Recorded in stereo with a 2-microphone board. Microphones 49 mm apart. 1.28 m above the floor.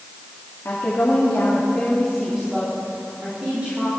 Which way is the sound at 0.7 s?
55° left (ahead or behind).